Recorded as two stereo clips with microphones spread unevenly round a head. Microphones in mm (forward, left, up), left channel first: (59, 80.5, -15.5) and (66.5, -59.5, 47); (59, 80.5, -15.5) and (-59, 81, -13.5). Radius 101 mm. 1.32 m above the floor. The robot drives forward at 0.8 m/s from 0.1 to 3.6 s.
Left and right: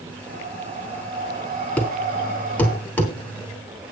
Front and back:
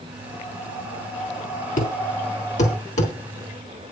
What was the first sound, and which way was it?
Breathing, 55° right.